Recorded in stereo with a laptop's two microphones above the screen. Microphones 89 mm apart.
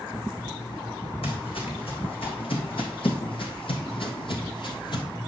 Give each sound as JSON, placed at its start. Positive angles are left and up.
{"t": 1.2, "sound": "footsteps", "side_deg": 75, "distance_m": 3.5}